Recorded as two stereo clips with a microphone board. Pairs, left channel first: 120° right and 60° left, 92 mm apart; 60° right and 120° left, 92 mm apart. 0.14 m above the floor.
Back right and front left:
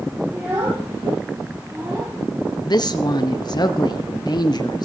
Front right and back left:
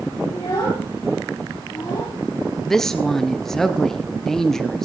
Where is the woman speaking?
145° right, 2.0 m.